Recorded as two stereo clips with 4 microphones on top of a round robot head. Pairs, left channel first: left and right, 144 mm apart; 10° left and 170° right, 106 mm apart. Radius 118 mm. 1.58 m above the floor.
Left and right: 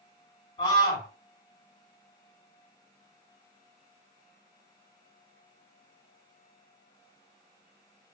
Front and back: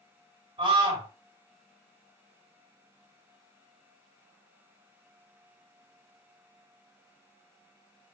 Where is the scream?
155° left, 4.5 m.